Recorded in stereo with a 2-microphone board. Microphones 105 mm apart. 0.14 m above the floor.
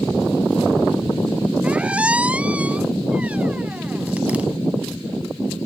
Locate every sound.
1.6 s a squeak: 15° right (ahead or behind)